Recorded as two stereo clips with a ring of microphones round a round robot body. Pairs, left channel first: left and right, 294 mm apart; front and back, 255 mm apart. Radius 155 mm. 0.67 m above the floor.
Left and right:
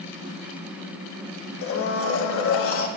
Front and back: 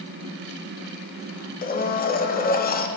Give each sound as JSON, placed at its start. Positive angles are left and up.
{"t": 1.6, "sound": "a blender", "azimuth_deg": 50, "distance_m": 0.7}